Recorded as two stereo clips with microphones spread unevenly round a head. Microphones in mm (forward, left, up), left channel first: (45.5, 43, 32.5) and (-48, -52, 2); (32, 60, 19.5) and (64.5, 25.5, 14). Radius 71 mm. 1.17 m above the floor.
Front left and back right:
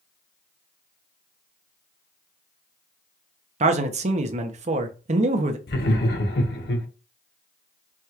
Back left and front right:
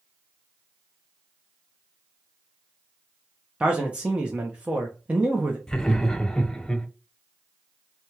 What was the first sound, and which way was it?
A man speaking, 115° right.